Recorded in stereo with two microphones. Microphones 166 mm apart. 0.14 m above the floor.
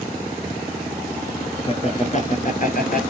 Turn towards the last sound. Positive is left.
turn(degrees=60)  # may be behind; listen again after turning